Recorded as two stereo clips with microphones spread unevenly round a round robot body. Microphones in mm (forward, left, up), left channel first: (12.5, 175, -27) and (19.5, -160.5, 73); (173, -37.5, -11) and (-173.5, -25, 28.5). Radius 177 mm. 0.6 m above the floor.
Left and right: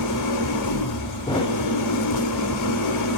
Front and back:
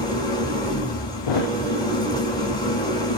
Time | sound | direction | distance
0.0 | an engine running | 75° left | 2 m
1.3 | a thud | 15° left | 0.7 m